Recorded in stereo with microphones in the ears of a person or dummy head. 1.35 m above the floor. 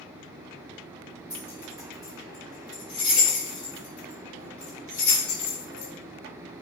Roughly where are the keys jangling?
Centre.